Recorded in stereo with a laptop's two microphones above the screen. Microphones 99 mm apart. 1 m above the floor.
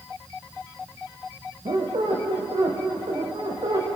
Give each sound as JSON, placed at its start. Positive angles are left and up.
{"t": 1.6, "sound": "a squeak", "side_deg": -75, "distance_m": 4.5}